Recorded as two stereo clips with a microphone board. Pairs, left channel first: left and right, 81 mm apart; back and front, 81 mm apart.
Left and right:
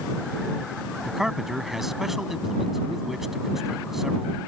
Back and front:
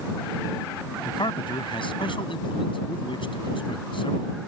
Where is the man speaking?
175° right.